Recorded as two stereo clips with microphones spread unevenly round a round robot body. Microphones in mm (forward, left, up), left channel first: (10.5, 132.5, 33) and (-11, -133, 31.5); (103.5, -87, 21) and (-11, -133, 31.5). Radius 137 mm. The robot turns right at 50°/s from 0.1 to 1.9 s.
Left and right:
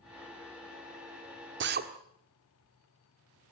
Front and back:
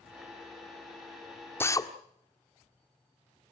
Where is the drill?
50° right, 1.7 m; by 1.9 s 35° right, 1.7 m.